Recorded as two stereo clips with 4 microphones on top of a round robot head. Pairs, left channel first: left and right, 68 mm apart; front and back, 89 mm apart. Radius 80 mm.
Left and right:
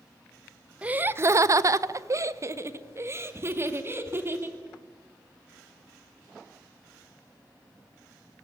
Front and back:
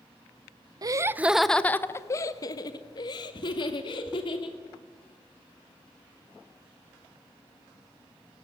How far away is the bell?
I don't hear a bell.